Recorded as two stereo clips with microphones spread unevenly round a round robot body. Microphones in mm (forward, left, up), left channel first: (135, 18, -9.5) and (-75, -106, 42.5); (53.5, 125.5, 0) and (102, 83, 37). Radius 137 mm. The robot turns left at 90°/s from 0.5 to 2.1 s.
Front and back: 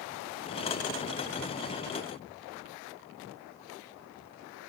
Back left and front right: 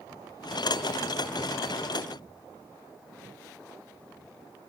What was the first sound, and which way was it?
Only background noise.